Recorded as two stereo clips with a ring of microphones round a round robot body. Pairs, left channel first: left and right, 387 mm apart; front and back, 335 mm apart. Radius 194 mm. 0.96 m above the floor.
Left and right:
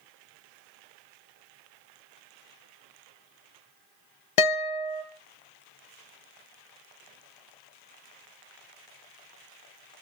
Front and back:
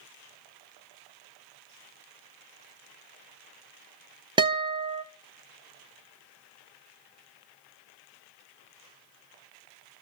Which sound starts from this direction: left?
A guitar, at 4.4 s.